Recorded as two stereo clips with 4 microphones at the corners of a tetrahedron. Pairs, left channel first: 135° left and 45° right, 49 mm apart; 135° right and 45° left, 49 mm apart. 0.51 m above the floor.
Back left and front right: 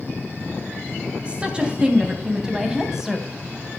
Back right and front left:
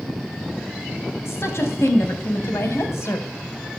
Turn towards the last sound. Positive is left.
turn(degrees=-130)